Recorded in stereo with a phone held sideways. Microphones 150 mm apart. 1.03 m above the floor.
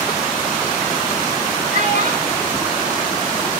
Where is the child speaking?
60° right (ahead or behind), 3.5 m.